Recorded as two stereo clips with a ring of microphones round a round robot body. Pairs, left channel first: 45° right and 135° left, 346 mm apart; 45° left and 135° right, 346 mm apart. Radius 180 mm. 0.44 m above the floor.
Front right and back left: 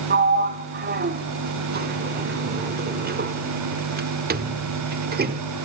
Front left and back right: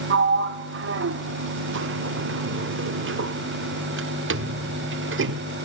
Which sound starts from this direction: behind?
A sliding door, at 0.1 s.